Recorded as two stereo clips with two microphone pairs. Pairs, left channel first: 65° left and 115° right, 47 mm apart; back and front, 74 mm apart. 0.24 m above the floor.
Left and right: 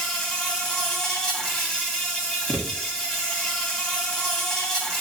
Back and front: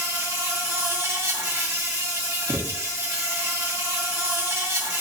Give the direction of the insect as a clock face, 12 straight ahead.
12 o'clock.